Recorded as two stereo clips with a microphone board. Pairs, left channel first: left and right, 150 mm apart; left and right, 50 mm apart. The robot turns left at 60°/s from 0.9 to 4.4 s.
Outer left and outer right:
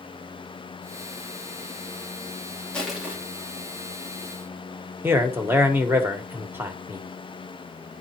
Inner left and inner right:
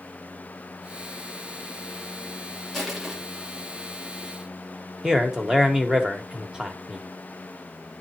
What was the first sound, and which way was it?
Crushing, 10° left (ahead or behind).